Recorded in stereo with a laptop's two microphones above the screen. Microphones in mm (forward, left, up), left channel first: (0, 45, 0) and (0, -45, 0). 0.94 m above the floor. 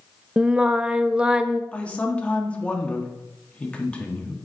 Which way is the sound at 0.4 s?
10° right (ahead or behind).